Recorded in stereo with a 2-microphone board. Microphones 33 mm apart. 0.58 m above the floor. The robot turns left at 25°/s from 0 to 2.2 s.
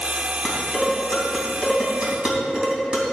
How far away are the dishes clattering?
About 3 m.